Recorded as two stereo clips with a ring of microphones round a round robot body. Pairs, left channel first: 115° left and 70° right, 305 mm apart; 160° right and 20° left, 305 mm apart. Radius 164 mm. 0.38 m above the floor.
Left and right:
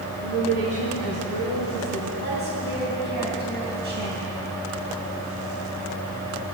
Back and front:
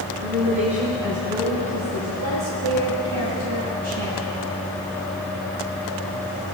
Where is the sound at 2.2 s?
10° right, 3 m.